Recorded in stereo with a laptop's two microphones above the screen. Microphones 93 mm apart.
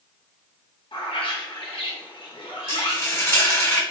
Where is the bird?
70° left (ahead or behind), 0.9 m.